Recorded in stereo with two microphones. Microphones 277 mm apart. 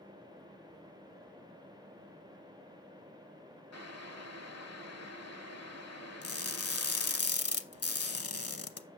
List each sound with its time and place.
3.7 s boiling: 65° left (ahead or behind), 0.9 m
6.2 s crushing: 60° left (ahead or behind), 0.8 m